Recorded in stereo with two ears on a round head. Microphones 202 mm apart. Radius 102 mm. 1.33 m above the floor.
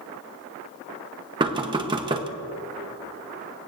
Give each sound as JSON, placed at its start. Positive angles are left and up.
{"t": 1.4, "sound": "knocking", "side_deg": -20, "distance_m": 0.9}